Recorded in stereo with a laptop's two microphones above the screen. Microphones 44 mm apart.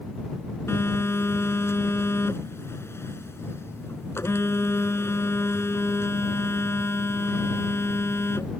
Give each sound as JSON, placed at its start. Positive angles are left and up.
{"t": 0.7, "sound": "a phone buzzing", "side_deg": 75}